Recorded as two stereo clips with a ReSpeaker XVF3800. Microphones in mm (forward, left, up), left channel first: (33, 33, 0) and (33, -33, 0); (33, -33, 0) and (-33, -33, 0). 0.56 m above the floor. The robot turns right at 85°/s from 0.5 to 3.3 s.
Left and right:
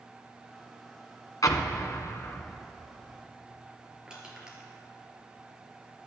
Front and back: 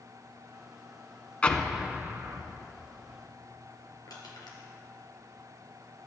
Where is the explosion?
70° left, 1.0 m; by 2.6 s 170° left, 1.0 m.